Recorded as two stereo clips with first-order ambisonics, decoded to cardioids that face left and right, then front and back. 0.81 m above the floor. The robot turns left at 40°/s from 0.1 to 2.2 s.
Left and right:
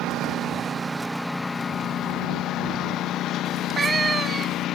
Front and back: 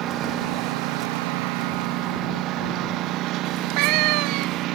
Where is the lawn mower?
135° right; by 4.8 s 140° left.